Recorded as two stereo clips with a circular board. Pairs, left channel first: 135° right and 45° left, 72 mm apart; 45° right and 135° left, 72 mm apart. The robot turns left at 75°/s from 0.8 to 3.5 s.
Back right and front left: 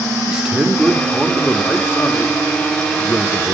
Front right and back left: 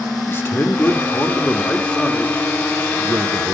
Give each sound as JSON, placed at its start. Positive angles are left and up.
{"t": 0.3, "sound": "a man speaking", "azimuth_deg": -25, "distance_m": 0.8}